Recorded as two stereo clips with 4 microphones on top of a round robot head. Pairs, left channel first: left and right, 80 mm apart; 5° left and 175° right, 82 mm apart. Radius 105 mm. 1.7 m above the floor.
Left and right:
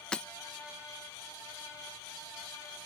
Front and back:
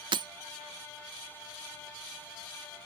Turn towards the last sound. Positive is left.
turn(degrees=175)